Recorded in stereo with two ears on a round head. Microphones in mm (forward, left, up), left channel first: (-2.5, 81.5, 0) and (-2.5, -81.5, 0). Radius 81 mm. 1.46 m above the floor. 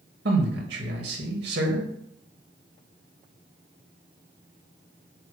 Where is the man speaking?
65° right (ahead or behind), 2 m.